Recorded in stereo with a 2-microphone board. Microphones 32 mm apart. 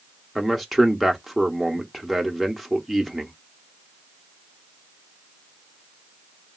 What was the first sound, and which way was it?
A man speaking, centre (ahead or behind).